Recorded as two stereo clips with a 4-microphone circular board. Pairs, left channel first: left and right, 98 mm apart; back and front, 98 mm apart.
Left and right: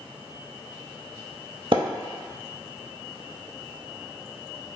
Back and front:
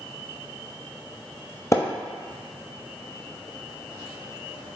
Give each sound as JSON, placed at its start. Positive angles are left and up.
{"t": 1.7, "sound": "a splash", "azimuth_deg": -120, "distance_m": 0.6}